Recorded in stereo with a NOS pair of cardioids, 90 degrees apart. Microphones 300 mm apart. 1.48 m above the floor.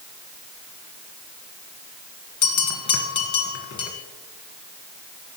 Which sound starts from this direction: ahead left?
A bell, at 2.4 s.